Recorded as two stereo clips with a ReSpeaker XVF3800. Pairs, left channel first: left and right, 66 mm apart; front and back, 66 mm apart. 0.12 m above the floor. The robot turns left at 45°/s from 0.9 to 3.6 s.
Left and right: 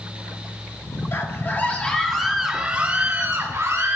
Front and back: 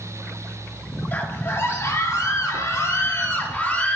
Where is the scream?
55° left, 2.5 m; by 4.0 s 55° right, 2.5 m.